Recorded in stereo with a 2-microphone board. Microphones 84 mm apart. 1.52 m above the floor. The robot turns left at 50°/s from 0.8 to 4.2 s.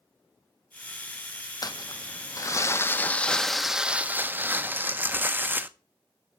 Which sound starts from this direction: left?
Crumpling, at 1.6 s.